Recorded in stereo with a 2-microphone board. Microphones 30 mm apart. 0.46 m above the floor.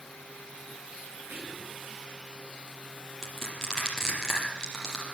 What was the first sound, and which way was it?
Whispering, 80° right.